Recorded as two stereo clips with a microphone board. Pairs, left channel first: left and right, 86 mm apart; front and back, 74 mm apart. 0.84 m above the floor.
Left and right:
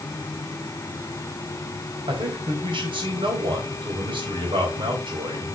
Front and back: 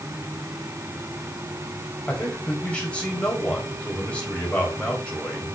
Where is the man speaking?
75° right, 3.5 m.